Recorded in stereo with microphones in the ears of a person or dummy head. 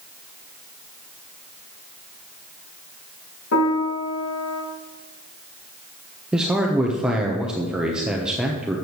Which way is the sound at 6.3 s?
10° right (ahead or behind).